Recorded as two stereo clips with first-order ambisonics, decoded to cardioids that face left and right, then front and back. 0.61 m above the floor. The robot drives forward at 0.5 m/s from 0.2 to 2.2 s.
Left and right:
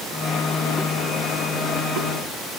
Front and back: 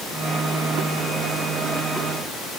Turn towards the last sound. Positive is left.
No sound to turn to.